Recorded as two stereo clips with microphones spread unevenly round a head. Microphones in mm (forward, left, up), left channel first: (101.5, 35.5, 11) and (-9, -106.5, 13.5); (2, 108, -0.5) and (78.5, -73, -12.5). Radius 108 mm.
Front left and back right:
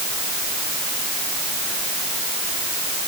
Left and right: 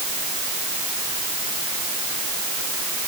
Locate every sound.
Only background noise.